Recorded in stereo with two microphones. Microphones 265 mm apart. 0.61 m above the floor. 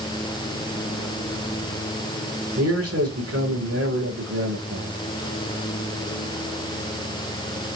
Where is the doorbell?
No doorbell in this recording.